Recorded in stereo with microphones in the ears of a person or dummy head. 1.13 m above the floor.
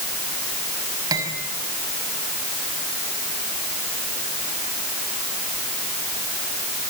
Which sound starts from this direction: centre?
Cutlery clinking, at 1.1 s.